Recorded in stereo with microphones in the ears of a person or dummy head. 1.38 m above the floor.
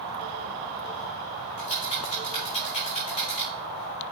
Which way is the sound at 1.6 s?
40° left (ahead or behind).